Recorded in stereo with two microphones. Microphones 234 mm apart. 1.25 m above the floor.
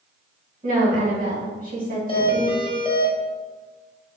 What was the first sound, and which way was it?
A woman speaking, 35° right (ahead or behind).